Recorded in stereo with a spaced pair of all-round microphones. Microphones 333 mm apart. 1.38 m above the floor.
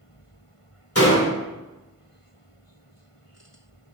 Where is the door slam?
45° left (ahead or behind), 3 m.